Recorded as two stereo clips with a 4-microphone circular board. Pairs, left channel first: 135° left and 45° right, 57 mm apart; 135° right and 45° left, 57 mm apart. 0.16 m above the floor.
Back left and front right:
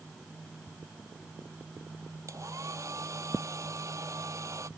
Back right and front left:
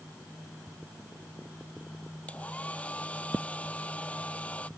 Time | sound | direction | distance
2.3 | a hair dryer | 70° right | ?